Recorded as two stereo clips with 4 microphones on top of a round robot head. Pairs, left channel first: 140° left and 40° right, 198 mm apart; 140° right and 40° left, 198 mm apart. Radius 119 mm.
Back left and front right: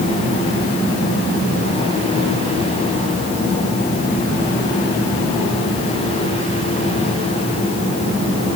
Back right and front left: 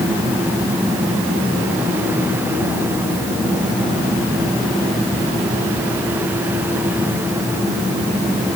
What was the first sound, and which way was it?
Only background noise.